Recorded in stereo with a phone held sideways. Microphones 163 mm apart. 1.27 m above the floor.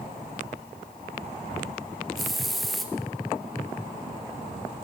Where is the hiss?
Centre (ahead or behind), 0.9 m.